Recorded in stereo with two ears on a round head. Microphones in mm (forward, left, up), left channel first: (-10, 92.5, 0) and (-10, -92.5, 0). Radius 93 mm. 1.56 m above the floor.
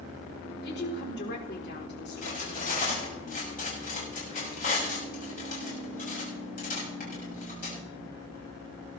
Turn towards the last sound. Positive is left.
turn(degrees=45)  # may be behind; listen again after turning